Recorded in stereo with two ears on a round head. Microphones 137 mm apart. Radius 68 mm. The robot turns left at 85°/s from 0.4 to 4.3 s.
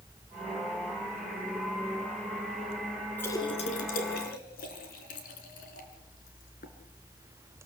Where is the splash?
10° left (ahead or behind), 3.5 m; by 6.7 s 65° left (ahead or behind), 3.5 m.